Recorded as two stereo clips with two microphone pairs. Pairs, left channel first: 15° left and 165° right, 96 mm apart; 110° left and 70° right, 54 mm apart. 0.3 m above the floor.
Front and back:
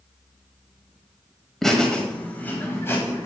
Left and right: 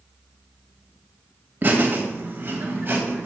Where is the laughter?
70° right, 1.5 m; by 3.3 s 35° right, 1.9 m.